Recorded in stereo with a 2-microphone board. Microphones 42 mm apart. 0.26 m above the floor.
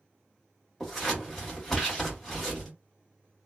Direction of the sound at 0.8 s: 5° left (ahead or behind).